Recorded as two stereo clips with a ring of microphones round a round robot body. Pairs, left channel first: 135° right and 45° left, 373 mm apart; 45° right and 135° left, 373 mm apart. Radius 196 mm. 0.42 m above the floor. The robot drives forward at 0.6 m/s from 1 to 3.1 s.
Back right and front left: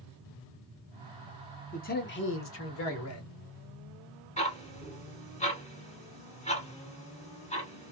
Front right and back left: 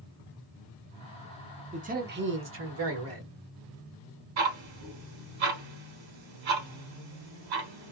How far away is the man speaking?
About 0.8 m.